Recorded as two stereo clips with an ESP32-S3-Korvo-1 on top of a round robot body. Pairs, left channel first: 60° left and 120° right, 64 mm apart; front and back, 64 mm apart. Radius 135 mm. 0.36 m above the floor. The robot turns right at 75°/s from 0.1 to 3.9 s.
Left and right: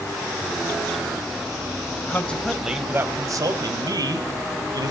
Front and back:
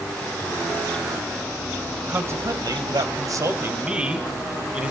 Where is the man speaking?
115° left, 2.5 m; by 4.9 s 105° right, 2.5 m.